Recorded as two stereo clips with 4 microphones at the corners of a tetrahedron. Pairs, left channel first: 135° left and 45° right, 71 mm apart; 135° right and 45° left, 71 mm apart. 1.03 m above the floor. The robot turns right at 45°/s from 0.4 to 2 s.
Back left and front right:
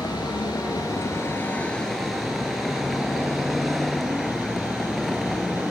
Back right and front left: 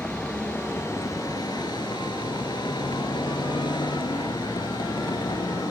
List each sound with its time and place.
0.0 s a vehicle: 150° left; by 5.7 s 135° right